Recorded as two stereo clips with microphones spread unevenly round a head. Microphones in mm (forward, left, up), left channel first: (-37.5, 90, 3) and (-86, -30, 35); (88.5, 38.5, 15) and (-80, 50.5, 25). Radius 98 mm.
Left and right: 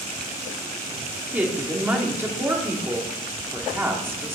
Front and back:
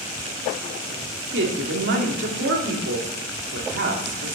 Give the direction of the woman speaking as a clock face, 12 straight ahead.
6 o'clock.